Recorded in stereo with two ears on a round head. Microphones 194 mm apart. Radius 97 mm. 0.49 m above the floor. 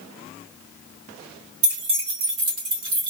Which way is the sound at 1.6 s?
65° right (ahead or behind).